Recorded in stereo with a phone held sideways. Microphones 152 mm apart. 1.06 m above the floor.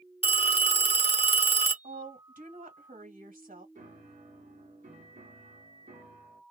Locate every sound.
0.2 s a phone ringing: 40° left (ahead or behind), 0.6 m
1.8 s a woman speaking: 65° right (ahead or behind), 1.6 m
3.8 s a piano: 55° right (ahead or behind), 1.4 m